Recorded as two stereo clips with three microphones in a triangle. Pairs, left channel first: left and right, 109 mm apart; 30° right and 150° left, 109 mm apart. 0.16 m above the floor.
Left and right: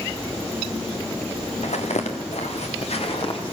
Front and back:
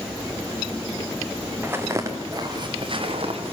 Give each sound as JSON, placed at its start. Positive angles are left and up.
{"t": 1.6, "sound": "footsteps", "azimuth_deg": 80, "distance_m": 3.0}